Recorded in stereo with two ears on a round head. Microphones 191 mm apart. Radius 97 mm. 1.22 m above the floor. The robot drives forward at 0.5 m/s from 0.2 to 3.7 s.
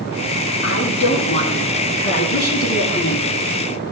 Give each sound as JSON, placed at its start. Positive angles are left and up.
{"t": 0.6, "sound": "a woman speaking", "side_deg": 70, "distance_m": 3.0}